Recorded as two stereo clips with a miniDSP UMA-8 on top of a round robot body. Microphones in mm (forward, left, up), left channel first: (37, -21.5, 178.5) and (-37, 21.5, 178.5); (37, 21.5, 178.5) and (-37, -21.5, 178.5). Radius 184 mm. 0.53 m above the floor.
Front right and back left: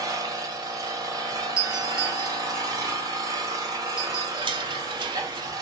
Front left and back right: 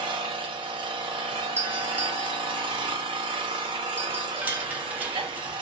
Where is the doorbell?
145° right, 1.1 m.